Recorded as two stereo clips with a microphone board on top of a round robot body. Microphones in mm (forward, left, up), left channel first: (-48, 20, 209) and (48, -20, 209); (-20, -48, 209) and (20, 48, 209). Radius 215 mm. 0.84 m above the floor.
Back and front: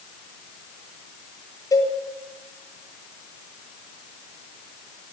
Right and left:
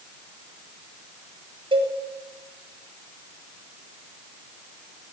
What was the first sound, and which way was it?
A cowbell, 100° left.